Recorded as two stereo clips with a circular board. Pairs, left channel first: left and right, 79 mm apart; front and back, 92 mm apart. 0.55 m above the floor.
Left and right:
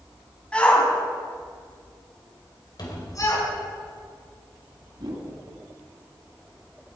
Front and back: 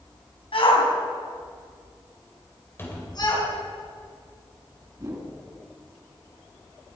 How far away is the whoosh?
About 2.5 m.